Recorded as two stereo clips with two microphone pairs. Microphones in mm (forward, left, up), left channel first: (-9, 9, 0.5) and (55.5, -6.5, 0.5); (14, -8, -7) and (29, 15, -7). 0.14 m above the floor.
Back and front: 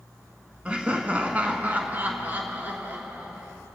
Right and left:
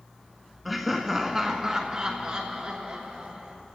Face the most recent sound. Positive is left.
turn(degrees=35)